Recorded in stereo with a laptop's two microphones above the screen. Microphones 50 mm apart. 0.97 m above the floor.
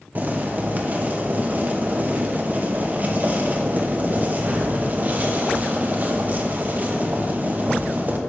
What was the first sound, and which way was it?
Boiling, 35° right (ahead or behind).